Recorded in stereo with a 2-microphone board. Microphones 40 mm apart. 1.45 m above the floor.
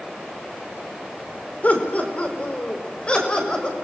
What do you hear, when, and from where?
1.6 s laughter: 40° left (ahead or behind), 4.5 m; by 3.7 s 25° left (ahead or behind), 7 m